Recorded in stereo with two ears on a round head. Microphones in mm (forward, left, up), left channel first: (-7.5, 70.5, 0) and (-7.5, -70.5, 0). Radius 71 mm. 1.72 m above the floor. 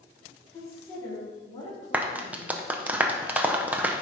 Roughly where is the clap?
Centre.